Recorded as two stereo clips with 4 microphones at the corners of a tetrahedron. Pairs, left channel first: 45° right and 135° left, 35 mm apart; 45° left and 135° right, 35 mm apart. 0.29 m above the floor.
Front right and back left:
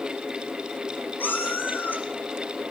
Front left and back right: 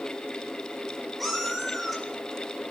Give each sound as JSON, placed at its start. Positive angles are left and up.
{"t": 1.2, "sound": "a cat meowing", "azimuth_deg": -45, "distance_m": 2.5}